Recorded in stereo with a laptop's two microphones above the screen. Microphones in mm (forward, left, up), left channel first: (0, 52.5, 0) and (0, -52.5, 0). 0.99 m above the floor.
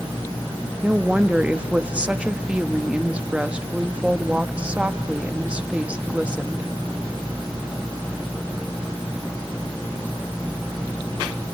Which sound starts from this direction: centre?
A woman speaking, at 0.8 s.